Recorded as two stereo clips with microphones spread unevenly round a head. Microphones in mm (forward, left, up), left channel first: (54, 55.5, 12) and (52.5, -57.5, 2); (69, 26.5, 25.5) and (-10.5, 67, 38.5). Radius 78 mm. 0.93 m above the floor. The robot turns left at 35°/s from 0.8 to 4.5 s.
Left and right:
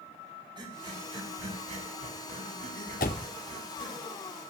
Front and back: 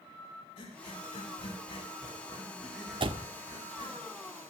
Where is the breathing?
40° right, 7.5 m; by 4.0 s 155° right, 7.5 m.